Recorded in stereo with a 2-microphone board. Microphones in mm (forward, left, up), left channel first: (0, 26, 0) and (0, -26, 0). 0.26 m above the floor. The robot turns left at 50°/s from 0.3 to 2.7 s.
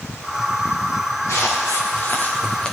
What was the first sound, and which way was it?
Footsteps, 75° left (ahead or behind).